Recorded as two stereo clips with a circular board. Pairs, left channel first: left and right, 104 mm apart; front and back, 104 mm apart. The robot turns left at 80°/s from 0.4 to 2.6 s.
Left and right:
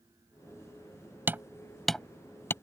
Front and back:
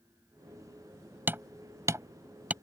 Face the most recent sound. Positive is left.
turn(degrees=120)